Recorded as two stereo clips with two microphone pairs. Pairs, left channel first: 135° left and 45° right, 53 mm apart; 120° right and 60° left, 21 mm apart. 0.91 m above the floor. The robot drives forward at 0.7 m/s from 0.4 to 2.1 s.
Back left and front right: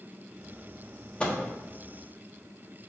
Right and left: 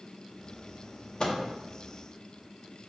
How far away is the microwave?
About 1.3 m.